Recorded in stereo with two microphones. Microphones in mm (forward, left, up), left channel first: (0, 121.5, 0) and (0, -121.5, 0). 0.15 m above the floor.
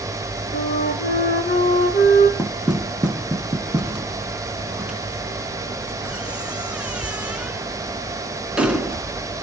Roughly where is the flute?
Left.